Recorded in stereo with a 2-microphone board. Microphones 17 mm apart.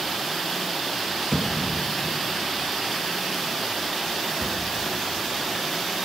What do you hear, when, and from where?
1.3 s a thud: 30° left (ahead or behind), 0.7 m